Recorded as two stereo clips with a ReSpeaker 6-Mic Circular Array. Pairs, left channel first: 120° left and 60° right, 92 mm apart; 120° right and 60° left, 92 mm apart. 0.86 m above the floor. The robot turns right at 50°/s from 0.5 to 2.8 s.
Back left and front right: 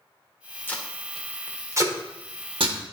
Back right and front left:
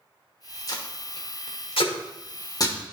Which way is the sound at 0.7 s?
170° right.